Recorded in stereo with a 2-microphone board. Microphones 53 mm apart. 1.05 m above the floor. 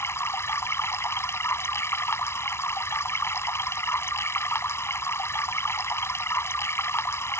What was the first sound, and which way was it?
Running water, 60° left (ahead or behind).